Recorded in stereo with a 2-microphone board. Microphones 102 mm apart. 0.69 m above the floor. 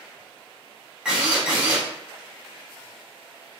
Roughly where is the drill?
Centre.